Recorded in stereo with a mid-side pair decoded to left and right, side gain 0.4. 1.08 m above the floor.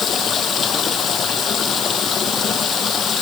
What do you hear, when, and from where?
0.0 s running water: 55° left